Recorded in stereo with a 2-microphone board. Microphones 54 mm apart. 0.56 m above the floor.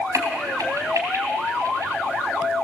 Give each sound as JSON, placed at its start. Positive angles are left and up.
{"t": 0.1, "sound": "a crack", "side_deg": -75, "distance_m": 3.0}